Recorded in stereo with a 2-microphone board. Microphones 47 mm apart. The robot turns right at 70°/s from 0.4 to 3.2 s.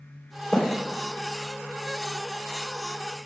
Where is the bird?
10° left (ahead or behind), 3.5 m; by 0.6 s 15° left (ahead or behind), 3.5 m.